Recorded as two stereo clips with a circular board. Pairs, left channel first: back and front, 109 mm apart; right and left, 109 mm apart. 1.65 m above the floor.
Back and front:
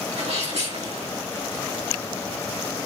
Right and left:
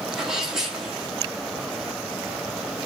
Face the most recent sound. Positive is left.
turn(degrees=5)